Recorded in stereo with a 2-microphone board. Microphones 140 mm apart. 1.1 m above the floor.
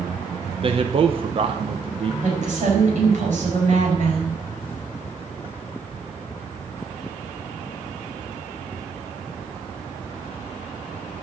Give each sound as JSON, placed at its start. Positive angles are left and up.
{"t": 0.6, "sound": "a man speaking", "side_deg": -40, "distance_m": 0.9}
{"t": 2.2, "sound": "a woman speaking", "side_deg": -55, "distance_m": 4.5}